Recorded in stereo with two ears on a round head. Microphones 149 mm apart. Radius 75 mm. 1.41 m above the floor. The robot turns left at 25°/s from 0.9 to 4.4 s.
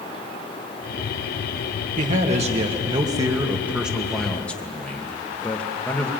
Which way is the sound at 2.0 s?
125° right.